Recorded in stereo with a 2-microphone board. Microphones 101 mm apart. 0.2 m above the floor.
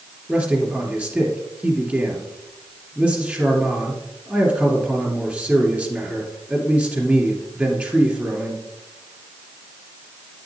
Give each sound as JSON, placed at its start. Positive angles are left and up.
{"t": 0.3, "sound": "a man speaking", "side_deg": -15, "distance_m": 3.0}